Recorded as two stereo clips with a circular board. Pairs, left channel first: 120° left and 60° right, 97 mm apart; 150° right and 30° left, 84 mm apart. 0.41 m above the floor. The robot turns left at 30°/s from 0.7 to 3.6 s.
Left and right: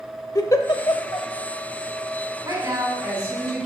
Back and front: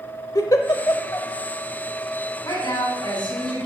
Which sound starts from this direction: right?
A woman speaking, at 2.4 s.